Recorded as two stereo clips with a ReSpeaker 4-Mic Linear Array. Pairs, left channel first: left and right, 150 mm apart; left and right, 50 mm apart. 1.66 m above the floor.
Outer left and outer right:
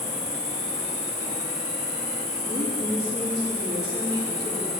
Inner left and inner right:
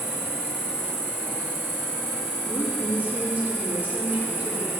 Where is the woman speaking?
30° right (ahead or behind), 3.5 m.